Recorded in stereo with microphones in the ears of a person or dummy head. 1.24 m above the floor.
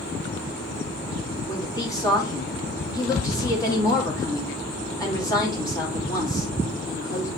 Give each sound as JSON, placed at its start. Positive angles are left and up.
{"t": 1.5, "sound": "a woman speaking", "side_deg": 20, "distance_m": 3.0}